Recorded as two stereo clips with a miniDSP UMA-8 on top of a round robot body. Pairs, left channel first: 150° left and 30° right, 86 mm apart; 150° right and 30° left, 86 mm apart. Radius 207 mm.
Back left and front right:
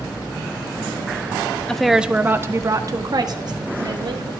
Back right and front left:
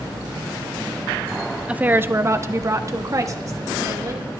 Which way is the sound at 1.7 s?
85° left.